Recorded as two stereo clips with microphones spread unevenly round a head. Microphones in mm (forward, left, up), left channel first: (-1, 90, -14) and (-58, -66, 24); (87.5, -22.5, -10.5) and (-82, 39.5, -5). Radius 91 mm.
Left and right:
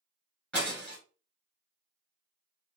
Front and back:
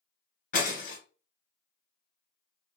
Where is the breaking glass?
25° right, 1.4 m.